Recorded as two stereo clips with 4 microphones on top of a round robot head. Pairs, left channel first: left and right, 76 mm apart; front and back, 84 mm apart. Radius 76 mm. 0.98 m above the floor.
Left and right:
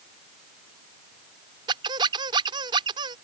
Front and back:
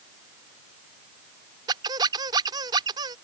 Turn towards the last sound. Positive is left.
turn(degrees=-130)